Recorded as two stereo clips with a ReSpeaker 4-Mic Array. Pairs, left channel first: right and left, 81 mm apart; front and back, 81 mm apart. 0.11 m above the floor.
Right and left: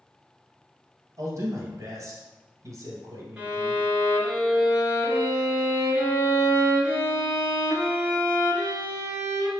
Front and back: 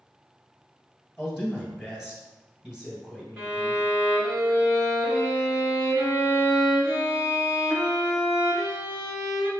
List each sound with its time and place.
1.2 s a man speaking: 100° left, 1.9 m
3.4 s a violin: 150° left, 1.4 m